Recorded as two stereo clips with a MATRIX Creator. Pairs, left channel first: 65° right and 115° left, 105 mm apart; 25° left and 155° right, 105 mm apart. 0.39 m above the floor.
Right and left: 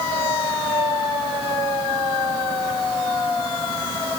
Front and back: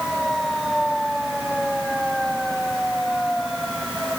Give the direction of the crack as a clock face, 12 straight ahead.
I don't hear a crack.